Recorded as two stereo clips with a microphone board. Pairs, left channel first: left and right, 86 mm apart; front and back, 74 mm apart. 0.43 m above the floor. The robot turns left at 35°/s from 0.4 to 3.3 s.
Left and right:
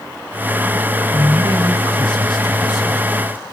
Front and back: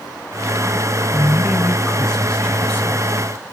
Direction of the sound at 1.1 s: 115° left.